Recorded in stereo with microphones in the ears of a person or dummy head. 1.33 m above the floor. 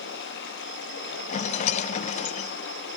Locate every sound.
0.0 s running water: 60° left (ahead or behind), 3 m
1.3 s a rattle: 40° left (ahead or behind), 0.9 m